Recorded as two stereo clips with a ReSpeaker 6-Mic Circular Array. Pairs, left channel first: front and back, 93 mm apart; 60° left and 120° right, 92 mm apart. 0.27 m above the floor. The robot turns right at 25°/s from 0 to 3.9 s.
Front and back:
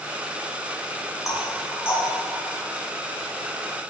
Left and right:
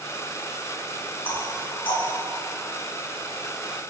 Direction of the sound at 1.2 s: 50° left.